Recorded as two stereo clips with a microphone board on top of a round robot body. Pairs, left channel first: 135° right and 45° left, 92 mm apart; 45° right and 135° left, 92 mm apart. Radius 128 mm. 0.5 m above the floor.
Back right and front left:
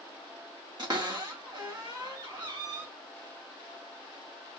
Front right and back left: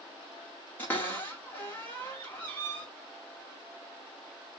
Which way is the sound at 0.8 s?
20° left.